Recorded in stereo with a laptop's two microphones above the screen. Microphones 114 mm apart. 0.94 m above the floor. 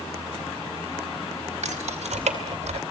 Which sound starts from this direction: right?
Keys jangling, at 1.6 s.